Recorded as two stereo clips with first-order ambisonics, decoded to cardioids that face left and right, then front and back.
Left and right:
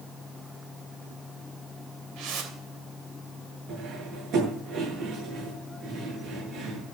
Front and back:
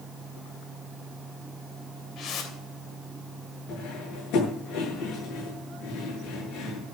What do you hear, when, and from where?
2.2 s a whoosh: 55° right, 3 m
3.7 s cutlery clinking: 45° right, 8.5 m